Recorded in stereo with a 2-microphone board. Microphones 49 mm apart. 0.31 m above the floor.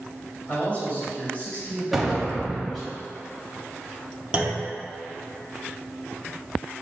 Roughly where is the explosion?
Centre.